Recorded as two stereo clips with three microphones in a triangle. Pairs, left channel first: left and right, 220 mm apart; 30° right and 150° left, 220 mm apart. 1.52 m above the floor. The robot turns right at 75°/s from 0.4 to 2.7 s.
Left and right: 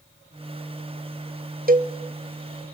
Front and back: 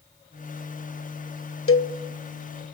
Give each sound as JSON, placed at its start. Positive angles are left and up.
{"t": 1.7, "sound": "a cowbell", "azimuth_deg": -40, "distance_m": 0.9}